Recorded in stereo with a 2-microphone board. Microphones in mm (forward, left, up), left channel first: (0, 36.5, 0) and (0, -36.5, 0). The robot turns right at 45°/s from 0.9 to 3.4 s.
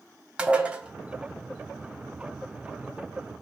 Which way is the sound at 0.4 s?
15° right (ahead or behind).